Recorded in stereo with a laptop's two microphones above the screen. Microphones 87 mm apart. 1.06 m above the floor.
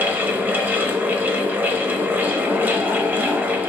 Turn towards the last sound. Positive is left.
turn(degrees=-20)  # may be behind; listen again after turning